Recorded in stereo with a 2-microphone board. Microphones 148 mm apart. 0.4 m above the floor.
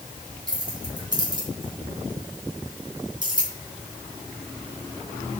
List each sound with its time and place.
0.5 s keys jangling: 30° right (ahead or behind), 2.5 m